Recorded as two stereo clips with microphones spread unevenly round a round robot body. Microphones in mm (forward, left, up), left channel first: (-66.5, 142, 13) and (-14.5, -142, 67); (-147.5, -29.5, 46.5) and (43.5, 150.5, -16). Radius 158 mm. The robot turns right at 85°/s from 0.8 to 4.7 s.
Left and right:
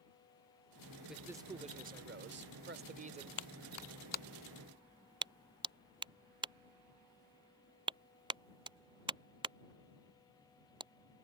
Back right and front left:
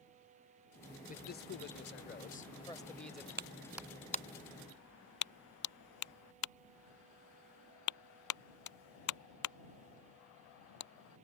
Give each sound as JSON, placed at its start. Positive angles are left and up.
{"t": 1.1, "sound": "a man speaking", "azimuth_deg": 170}
{"t": 3.4, "sound": "a clap", "azimuth_deg": 95}